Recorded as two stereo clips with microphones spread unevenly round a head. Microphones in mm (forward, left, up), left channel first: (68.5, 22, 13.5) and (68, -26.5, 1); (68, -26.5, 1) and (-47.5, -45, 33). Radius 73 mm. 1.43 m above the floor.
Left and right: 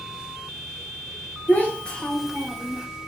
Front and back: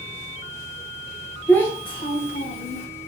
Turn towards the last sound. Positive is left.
turn(degrees=-5)